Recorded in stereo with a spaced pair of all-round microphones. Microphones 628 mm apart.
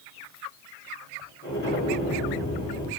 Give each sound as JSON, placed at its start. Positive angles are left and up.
{"t": 1.4, "sound": "an explosion", "side_deg": 30, "distance_m": 2.5}